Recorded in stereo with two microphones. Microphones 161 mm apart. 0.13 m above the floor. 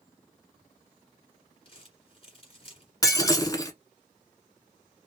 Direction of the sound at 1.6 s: 40° left (ahead or behind).